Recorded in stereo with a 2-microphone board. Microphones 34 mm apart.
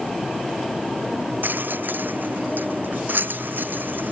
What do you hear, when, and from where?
1.4 s a rattle: 75° right (ahead or behind)